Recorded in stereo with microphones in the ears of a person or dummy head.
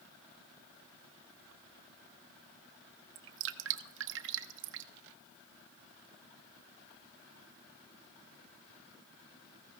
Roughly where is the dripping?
Right.